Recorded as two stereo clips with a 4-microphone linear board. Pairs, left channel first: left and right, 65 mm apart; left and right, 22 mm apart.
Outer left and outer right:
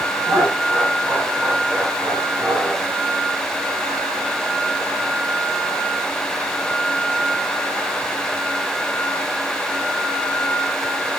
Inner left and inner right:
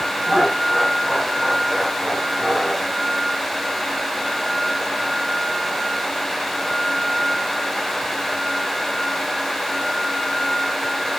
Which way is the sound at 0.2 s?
30° right (ahead or behind).